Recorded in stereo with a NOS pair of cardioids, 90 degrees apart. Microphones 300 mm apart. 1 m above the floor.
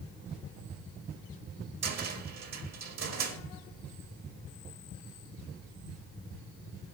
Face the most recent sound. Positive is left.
turn(degrees=-60)